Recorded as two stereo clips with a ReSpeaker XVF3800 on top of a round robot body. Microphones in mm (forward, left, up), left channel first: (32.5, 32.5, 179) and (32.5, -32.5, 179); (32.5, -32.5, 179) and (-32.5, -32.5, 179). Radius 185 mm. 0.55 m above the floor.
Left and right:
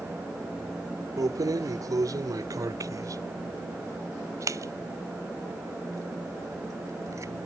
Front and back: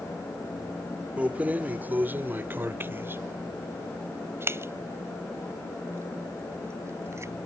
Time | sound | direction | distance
1.2 | keys jangling | 110° right | ?